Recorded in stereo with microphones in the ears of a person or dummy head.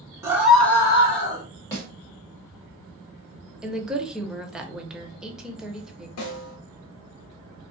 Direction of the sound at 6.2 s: 75° left (ahead or behind).